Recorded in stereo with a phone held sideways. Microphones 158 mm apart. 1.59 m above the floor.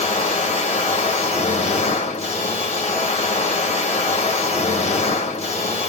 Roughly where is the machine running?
Left.